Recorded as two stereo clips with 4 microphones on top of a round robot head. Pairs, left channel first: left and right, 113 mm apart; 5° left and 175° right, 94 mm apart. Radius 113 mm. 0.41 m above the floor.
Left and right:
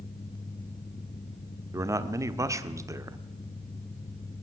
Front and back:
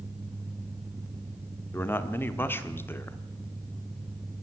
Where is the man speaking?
45° right, 1.6 m.